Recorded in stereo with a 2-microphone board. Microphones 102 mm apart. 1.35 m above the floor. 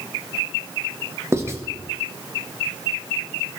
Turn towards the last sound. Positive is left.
turn(degrees=-25)  # may be behind; listen again after turning